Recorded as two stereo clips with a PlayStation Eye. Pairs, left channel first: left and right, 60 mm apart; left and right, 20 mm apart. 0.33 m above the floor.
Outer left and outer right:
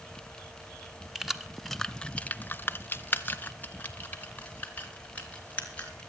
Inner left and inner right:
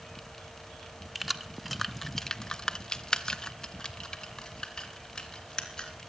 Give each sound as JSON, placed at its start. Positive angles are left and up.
{"t": 1.1, "sound": "keys jangling", "side_deg": -5, "distance_m": 1.3}